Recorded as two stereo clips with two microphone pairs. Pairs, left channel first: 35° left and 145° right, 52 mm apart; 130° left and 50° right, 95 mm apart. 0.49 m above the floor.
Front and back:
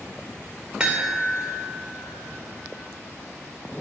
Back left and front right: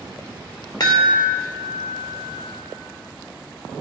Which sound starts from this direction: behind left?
A chime, at 0.8 s.